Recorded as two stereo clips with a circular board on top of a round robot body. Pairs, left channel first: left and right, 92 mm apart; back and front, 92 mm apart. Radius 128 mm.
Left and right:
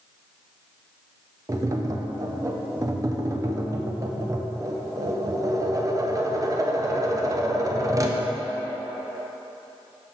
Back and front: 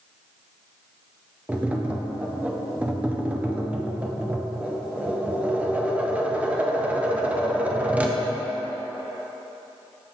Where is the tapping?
65° right, 0.5 m.